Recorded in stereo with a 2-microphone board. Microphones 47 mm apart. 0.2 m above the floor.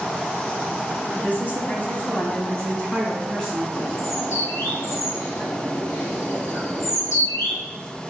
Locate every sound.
1.1 s a woman speaking: 40° left (ahead or behind), 1.5 m; by 3.6 s 5° left (ahead or behind), 1.7 m
3.7 s a bird: 70° left (ahead or behind), 1.9 m